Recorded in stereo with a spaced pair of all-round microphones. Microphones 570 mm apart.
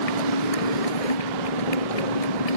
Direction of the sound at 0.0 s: 85° left.